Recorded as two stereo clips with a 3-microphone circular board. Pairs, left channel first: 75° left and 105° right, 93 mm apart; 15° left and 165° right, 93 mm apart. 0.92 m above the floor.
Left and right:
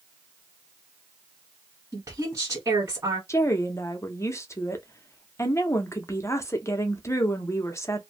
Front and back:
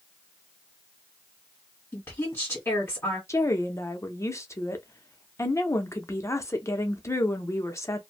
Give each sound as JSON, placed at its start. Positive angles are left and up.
{"t": 1.9, "sound": "a woman speaking", "azimuth_deg": -50, "distance_m": 1.5}
{"t": 3.3, "sound": "a woman speaking", "azimuth_deg": 40, "distance_m": 0.6}